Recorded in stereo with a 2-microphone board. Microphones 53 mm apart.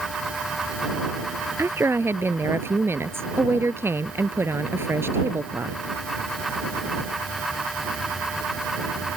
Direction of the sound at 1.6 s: 50° right (ahead or behind).